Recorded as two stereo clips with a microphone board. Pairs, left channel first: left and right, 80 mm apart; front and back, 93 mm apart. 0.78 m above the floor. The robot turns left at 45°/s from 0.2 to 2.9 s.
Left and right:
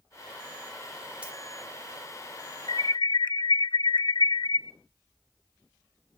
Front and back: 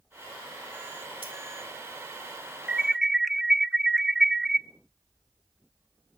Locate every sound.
1.2 s keys jangling: 165° right, 1.9 m; by 1.3 s 170° right, 1.9 m
2.7 s an alarm: 105° left, 0.7 m; by 4.6 s 95° left, 0.7 m